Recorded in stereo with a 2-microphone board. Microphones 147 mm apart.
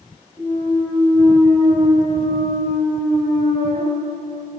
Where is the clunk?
25° left (ahead or behind), 3.5 m.